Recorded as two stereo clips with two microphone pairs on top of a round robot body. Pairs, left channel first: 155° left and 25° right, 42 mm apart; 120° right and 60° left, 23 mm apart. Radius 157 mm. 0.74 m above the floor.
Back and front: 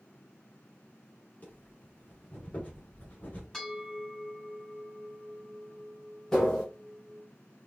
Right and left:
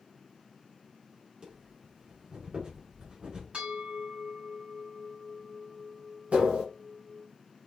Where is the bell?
80° left, 3.5 m.